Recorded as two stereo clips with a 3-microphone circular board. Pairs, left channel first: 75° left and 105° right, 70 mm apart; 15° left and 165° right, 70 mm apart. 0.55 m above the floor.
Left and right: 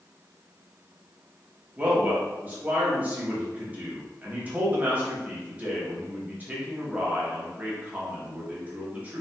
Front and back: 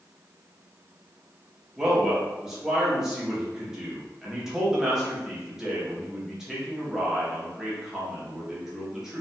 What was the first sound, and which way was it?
A man speaking, 95° right.